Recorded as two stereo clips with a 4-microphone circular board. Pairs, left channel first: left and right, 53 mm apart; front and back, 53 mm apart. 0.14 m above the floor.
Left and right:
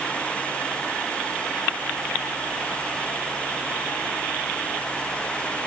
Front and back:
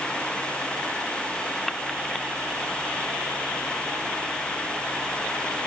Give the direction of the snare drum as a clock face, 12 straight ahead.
I don't hear a snare drum.